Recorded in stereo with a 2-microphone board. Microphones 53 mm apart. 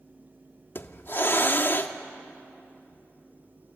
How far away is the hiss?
About 1.0 m.